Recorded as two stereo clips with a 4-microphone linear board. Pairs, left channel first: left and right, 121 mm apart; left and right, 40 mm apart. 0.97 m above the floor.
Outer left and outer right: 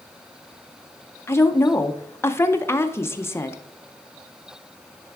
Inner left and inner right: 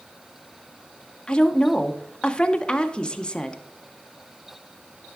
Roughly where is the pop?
No pop in this recording.